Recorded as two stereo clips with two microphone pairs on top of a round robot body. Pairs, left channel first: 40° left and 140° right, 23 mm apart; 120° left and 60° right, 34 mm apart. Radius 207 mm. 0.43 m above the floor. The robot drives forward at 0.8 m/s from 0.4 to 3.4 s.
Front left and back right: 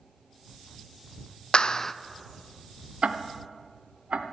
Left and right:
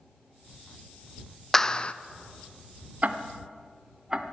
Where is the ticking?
105° right, 0.6 m; by 4.2 s 130° right, 0.7 m.